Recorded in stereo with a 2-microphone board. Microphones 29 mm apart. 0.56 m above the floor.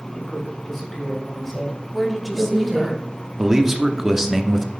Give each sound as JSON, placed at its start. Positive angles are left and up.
{"t": 0.1, "sound": "a man speaking", "side_deg": 15, "distance_m": 4.0}
{"t": 1.9, "sound": "a woman speaking", "side_deg": -5, "distance_m": 1.0}
{"t": 3.4, "sound": "a man speaking", "side_deg": -15, "distance_m": 0.7}